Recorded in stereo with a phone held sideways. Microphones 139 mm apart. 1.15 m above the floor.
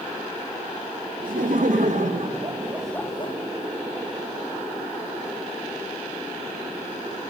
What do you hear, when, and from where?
1.2 s laughter: 70° right (ahead or behind), 1.9 m; by 3.4 s 40° left (ahead or behind), 0.8 m